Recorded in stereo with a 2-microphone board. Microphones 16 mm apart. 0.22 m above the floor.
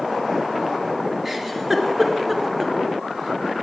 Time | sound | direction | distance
1.2 | a giggle | 25° right (ahead or behind) | 2.0 m